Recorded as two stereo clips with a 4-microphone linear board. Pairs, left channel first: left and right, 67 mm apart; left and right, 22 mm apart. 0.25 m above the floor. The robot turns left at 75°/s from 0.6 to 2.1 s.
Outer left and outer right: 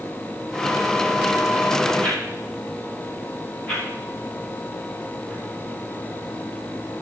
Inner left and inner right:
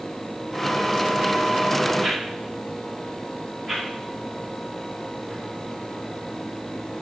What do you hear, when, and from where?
2.0 s a whoosh: 25° left (ahead or behind), 5 m; by 7.0 s 20° left (ahead or behind), 5 m